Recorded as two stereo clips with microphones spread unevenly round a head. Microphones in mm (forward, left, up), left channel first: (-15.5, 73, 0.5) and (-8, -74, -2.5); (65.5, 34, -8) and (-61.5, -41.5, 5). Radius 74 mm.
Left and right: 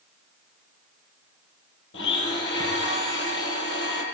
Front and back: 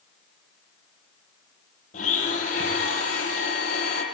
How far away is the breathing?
No breathing in this recording.